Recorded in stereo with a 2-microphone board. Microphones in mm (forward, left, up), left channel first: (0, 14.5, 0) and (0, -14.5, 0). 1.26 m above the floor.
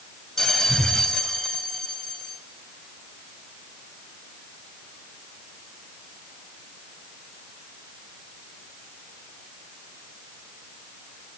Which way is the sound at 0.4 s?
15° left (ahead or behind).